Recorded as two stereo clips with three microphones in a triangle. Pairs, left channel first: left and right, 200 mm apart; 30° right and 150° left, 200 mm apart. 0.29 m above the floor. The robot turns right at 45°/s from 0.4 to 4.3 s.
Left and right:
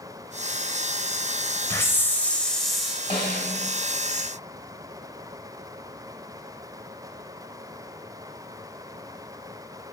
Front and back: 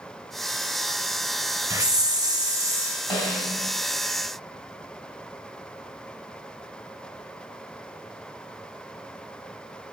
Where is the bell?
I don't hear a bell.